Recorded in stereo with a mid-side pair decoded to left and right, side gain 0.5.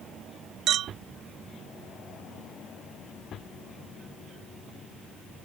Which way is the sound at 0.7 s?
65° right.